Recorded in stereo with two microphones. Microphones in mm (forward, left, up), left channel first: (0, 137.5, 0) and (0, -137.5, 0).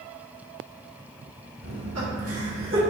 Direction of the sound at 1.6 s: 70° right (ahead or behind).